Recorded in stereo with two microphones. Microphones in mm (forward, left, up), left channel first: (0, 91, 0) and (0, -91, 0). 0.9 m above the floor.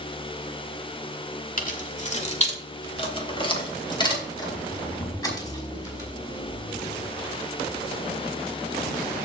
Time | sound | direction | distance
1.6 | keys jangling | 50° left (ahead or behind) | 1.9 m